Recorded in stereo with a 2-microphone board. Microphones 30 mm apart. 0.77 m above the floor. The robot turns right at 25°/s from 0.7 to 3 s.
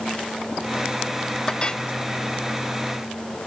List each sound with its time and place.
1.5 s a clink: 25° left (ahead or behind); by 1.8 s 35° left (ahead or behind)